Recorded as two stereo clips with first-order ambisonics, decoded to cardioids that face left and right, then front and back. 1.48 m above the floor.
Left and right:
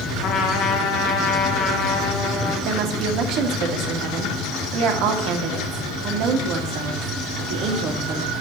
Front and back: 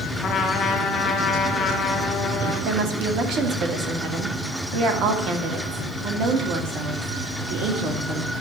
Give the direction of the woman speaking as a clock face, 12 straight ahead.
4 o'clock.